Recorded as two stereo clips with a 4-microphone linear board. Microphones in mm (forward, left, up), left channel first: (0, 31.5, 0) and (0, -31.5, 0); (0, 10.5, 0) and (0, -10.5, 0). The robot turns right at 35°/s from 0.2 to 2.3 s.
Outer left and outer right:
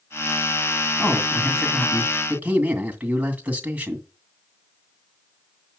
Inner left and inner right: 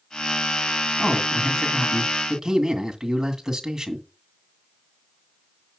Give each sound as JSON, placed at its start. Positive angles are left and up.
{"t": 1.0, "sound": "a man speaking", "azimuth_deg": 165, "distance_m": 2.0}